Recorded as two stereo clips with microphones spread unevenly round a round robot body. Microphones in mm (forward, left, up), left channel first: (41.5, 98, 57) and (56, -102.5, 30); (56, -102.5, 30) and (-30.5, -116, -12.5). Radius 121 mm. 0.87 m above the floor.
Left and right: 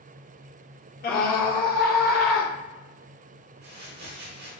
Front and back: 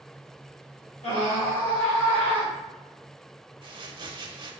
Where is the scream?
55° left, 1.1 m.